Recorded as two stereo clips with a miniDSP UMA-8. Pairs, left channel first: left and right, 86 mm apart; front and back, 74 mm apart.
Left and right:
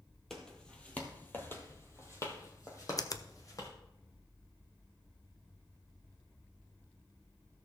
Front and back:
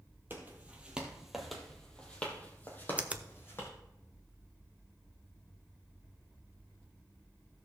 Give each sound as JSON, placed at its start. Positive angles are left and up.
{"t": 0.3, "sound": "footsteps", "azimuth_deg": 170, "distance_m": 1.6}
{"t": 3.0, "sound": "a finger snap", "azimuth_deg": 115, "distance_m": 0.6}